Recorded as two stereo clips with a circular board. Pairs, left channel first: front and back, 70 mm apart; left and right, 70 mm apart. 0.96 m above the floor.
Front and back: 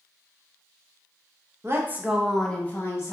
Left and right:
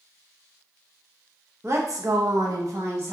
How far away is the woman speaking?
About 0.8 m.